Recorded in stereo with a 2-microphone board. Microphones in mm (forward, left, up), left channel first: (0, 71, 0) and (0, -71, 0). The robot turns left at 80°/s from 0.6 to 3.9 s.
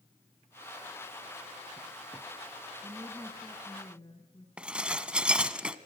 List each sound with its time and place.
2.8 s a woman speaking: 135° right, 2.0 m; by 4.5 s 140° left, 2.0 m
4.6 s dishes clattering: 5° right (ahead or behind), 1.0 m